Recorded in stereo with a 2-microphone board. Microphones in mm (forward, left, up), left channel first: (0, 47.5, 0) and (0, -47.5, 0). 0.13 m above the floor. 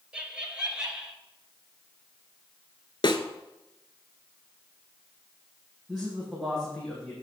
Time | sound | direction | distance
0.1 | laughter | 10° right (ahead or behind) | 2 m
3.0 | a snare drum | 55° left (ahead or behind) | 0.8 m
5.9 | a man speaking | centre (ahead or behind) | 4.5 m